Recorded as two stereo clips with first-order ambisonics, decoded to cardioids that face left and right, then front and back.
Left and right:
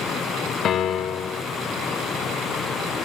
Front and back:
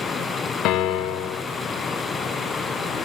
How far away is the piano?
About 1.4 m.